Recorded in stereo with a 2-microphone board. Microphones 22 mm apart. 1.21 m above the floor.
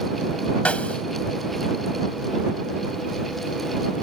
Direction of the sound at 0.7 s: 85° left.